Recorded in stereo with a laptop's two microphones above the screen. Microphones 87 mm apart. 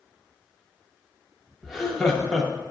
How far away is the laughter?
About 0.8 m.